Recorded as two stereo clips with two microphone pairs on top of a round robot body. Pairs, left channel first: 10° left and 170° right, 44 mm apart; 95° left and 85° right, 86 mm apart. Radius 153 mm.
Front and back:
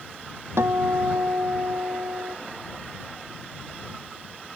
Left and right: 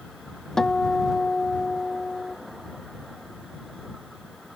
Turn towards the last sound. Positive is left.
turn(degrees=180)